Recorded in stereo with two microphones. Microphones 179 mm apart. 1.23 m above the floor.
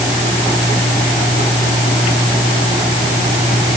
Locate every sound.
Only background noise.